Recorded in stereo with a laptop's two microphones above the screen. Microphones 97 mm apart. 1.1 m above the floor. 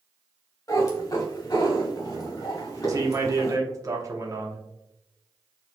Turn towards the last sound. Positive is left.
turn(degrees=-35)  # may be behind; listen again after turning